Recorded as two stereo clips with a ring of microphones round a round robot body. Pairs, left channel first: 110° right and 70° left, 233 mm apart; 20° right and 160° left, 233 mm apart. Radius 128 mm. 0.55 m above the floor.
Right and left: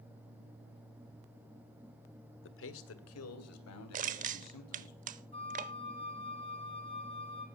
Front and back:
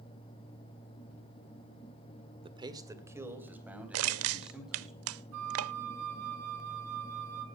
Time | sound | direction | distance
2.4 | a man speaking | 135° right | 1.5 m
3.9 | crushing | 125° left | 0.5 m
5.3 | a flute | straight behind | 3 m